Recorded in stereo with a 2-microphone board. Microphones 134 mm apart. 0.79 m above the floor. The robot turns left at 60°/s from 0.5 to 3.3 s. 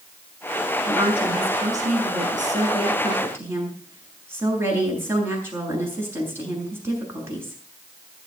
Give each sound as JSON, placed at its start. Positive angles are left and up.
{"t": 0.8, "sound": "a woman speaking", "azimuth_deg": -15, "distance_m": 7.5}